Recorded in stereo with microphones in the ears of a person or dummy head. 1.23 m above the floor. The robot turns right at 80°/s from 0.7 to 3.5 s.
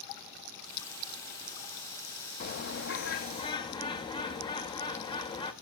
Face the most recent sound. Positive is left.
turn(degrees=150)